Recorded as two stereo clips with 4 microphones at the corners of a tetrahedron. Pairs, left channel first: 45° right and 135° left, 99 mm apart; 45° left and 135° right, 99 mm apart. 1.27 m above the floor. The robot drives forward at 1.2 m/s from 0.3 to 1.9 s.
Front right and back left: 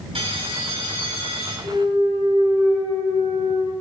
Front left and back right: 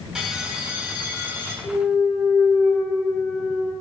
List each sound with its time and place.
0.1 s a bell: 140° left, 2 m; by 1.5 s 155° left, 3.5 m
1.6 s a clunk: 125° left, 3.5 m; by 3.7 s 130° left, 4 m